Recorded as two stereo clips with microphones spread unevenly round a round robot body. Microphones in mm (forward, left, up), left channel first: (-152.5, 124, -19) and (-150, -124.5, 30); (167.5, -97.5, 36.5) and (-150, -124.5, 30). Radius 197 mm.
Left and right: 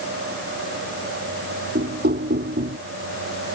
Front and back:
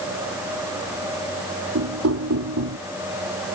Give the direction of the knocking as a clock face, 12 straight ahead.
5 o'clock.